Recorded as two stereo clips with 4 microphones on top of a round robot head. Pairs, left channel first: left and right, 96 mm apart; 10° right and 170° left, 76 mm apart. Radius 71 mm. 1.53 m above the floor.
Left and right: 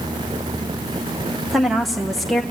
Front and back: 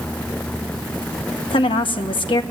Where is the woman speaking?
Straight ahead, 1.5 m.